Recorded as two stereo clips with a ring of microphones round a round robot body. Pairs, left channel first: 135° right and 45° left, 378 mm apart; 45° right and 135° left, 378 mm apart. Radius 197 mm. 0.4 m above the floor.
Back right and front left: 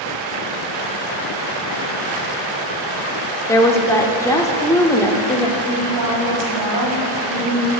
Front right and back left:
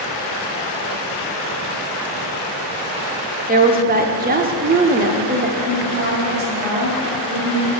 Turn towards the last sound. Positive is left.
turn(degrees=75)